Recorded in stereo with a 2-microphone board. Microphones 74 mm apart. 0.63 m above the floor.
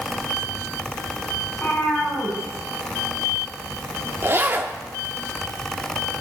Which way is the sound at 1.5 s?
25° left (ahead or behind).